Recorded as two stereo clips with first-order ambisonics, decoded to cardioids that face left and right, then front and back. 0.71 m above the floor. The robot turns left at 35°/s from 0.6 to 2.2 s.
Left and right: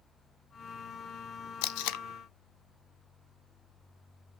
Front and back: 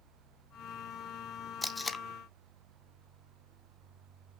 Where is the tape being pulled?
90° left, 0.5 m; by 2.0 s 75° left, 0.5 m.